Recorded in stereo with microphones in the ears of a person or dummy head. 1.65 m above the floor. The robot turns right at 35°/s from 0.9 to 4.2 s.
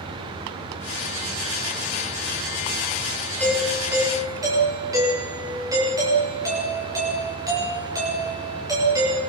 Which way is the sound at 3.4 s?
5° left (ahead or behind).